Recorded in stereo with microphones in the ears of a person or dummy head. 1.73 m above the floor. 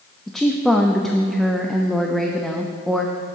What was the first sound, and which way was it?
A woman speaking, 5° left (ahead or behind).